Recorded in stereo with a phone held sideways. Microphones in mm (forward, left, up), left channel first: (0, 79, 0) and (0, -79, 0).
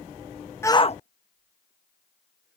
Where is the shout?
15° left (ahead or behind); by 2.6 s 80° left.